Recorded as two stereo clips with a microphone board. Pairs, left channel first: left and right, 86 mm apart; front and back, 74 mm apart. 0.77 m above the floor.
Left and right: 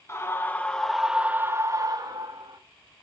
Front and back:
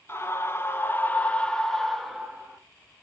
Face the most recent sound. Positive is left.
turn(degrees=-95)